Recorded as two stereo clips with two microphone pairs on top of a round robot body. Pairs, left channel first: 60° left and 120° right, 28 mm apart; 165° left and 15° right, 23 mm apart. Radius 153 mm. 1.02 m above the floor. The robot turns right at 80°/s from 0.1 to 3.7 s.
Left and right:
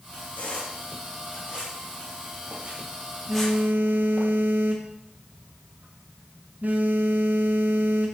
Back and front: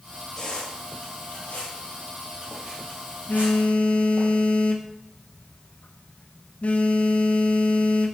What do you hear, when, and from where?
0.4 s a squeak: 95° left, 3.5 m; by 4.3 s straight ahead, 3.5 m
3.3 s a phone buzzing: 170° left, 0.6 m; by 8.2 s 155° right, 0.6 m